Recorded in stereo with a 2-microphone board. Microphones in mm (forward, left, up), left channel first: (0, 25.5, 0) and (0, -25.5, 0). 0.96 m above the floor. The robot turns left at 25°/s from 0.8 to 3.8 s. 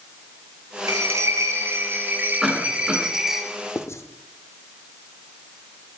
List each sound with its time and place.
0.9 s a bell: 110° right, 1.9 m; by 3.4 s 170° right, 1.9 m
2.4 s a cough: 5° right (ahead or behind), 8.5 m; by 3.0 s 20° right (ahead or behind), 8.5 m
3.8 s writing: 60° left (ahead or behind), 1.2 m